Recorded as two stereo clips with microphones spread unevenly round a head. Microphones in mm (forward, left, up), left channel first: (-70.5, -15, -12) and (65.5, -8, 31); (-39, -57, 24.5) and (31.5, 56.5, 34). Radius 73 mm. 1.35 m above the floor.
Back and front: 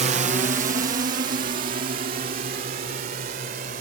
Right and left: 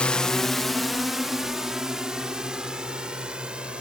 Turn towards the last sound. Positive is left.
turn(degrees=-25)